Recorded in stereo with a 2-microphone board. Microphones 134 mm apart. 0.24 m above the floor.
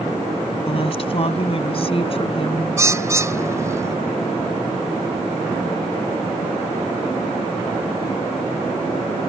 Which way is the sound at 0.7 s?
45° left (ahead or behind).